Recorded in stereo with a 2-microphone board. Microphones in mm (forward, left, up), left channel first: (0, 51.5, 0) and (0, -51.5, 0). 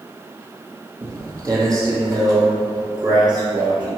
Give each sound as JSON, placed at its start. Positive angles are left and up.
{"t": 1.0, "sound": "footsteps", "side_deg": -30, "distance_m": 2.0}